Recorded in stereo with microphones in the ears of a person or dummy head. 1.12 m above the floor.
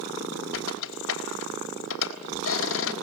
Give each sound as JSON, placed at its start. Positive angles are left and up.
{"t": 0.5, "sound": "a squeak", "side_deg": 85, "distance_m": 3.5}